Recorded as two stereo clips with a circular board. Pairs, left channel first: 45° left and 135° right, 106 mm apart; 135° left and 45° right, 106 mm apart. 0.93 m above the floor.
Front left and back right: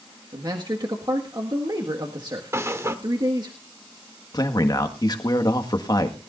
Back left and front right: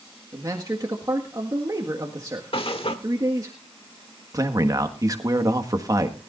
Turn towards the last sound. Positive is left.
turn(degrees=5)